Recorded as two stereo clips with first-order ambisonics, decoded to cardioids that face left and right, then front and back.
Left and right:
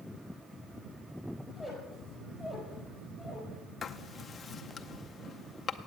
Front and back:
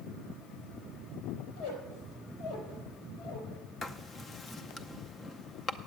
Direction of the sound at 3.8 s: 40° left.